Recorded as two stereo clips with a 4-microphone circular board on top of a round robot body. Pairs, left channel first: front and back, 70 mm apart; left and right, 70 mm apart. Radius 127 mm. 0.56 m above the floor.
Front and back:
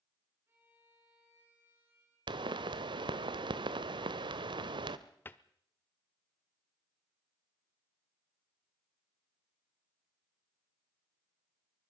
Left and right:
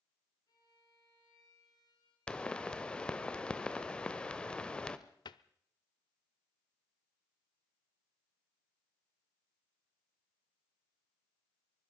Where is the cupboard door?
65° left, 0.6 m.